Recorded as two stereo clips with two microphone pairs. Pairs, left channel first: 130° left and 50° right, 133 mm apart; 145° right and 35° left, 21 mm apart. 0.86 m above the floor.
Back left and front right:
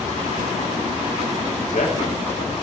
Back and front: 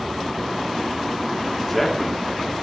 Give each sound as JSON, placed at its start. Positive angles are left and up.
{"t": 1.6, "sound": "a man speaking", "azimuth_deg": 130, "distance_m": 2.5}